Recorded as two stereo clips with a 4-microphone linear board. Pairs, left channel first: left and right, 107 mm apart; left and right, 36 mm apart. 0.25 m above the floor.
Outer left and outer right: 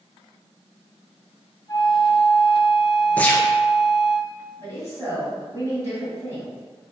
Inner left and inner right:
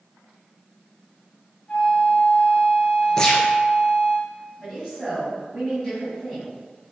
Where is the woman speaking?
25° right (ahead or behind), 2.0 m.